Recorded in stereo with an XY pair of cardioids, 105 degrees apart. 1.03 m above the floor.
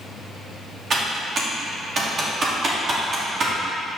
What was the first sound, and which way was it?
Typing on a keyboard, 45° right.